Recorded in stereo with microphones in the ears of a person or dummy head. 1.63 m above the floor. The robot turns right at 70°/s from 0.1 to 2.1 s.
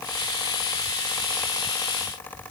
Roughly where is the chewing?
I don't hear chewing.